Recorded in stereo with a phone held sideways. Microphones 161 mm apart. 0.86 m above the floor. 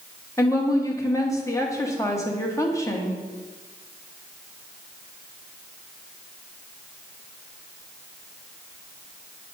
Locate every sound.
0.4 s a woman speaking: 20° left (ahead or behind), 1.3 m